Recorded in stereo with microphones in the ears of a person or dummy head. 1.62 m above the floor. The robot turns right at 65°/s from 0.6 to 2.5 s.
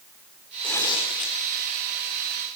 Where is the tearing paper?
10° left, 3 m; by 1.4 s 60° left, 3 m.